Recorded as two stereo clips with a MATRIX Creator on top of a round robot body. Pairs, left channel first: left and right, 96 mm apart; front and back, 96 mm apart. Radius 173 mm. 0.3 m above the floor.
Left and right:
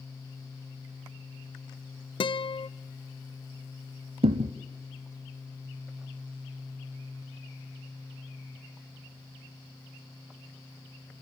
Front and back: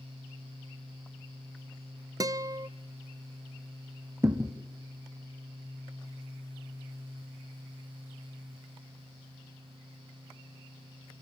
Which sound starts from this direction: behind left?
A guitar, at 2.2 s.